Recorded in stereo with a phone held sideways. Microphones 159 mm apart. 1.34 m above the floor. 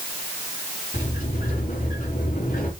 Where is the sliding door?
60° left (ahead or behind), 3 m.